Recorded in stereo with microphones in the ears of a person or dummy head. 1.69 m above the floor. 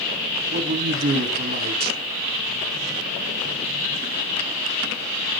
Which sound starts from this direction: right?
A man speaking, at 0.5 s.